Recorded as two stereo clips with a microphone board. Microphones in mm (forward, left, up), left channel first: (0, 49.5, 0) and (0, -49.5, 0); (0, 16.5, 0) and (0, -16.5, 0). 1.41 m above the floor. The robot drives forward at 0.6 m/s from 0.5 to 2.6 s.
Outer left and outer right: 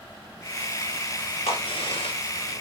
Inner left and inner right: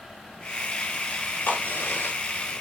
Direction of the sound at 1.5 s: 80° left.